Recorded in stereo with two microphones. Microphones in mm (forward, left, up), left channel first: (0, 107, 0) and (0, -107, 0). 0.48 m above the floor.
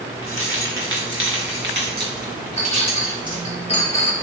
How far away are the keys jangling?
About 3 m.